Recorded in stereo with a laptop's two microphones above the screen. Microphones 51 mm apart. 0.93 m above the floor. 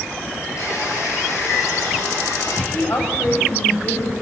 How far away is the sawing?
About 9 m.